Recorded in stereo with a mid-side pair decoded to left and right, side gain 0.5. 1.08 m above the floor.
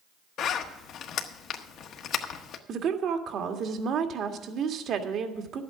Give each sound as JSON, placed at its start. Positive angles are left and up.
{"t": 0.4, "sound": "a zipper", "azimuth_deg": 65, "distance_m": 1.3}
{"t": 2.7, "sound": "a woman speaking", "azimuth_deg": -55, "distance_m": 1.7}